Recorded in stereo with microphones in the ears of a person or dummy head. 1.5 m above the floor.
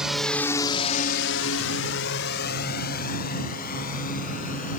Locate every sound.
0.0 s a drone: centre (ahead or behind); by 4.8 s 45° left (ahead or behind)